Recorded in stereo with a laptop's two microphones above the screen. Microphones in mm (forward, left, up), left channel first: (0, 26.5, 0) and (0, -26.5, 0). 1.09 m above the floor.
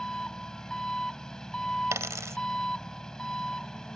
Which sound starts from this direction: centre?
An engine running, at 0.0 s.